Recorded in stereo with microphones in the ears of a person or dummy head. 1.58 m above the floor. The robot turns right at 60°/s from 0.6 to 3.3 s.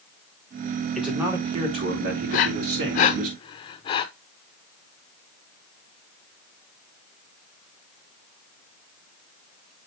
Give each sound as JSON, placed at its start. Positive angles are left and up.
{"t": 0.9, "sound": "a man speaking", "azimuth_deg": -175, "distance_m": 2.5}
{"t": 2.3, "sound": "breathing", "side_deg": 45, "distance_m": 0.6}